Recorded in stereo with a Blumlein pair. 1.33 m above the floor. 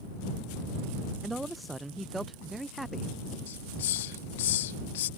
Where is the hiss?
55° left.